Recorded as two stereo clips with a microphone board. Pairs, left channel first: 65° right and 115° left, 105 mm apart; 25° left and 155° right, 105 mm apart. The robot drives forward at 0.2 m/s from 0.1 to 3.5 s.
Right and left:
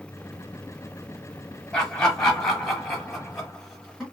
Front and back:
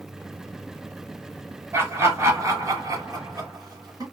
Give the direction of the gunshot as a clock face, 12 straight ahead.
I don't hear a gunshot.